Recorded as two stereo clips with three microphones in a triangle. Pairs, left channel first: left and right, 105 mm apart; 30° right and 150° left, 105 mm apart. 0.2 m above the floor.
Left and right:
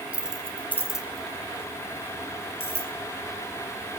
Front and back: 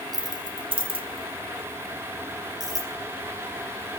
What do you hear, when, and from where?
0.1 s keys jangling: 165° right, 1.7 m; by 2.9 s 100° left, 3.5 m